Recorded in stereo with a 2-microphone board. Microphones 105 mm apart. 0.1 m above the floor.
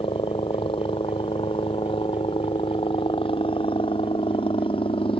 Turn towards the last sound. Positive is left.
turn(degrees=60)  # may be behind; listen again after turning